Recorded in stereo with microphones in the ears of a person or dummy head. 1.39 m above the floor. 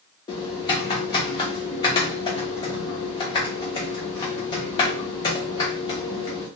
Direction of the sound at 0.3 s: 25° left (ahead or behind).